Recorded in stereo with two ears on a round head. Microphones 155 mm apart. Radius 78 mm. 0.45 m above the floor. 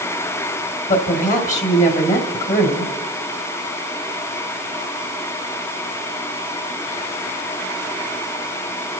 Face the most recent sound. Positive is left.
turn(degrees=45)  # may be behind; listen again after turning